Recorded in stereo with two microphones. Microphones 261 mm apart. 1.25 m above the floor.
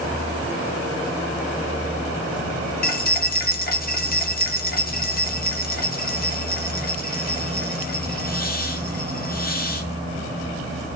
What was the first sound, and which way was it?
Keys jangling, 35° left (ahead or behind).